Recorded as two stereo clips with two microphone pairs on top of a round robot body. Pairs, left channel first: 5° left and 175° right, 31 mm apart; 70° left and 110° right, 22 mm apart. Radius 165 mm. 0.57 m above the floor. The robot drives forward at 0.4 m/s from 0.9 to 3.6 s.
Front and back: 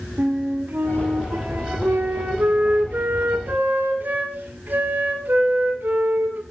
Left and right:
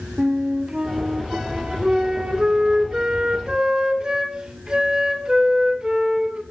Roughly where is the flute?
Behind.